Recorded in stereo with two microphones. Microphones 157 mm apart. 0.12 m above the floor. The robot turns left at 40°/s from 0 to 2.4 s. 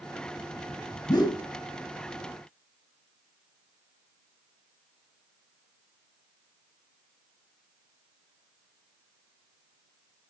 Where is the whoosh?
25° left (ahead or behind), 0.9 m; by 1.4 s 30° left (ahead or behind), 0.9 m.